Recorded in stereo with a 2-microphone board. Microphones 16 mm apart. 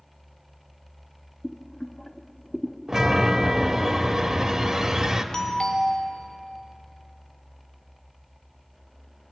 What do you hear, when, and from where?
1.4 s boiling: 50° left (ahead or behind), 0.9 m
2.9 s a chime: 35° right (ahead or behind), 1.4 m
5.3 s a doorbell: 45° left (ahead or behind), 2.5 m